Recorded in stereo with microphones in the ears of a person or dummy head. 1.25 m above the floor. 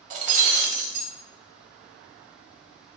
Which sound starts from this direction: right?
Breaking glass, at 0.1 s.